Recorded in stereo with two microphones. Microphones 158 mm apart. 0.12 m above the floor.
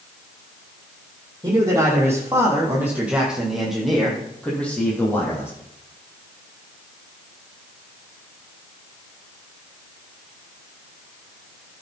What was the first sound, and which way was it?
A man speaking, 25° right (ahead or behind).